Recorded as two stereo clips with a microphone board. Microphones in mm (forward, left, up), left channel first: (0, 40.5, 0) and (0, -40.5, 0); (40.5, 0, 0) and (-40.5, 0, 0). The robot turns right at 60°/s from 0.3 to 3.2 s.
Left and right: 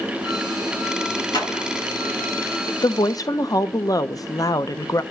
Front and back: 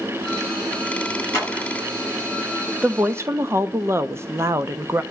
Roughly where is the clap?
Ahead left.